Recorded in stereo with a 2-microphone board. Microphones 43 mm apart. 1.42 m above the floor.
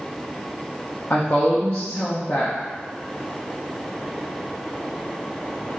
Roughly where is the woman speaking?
Left.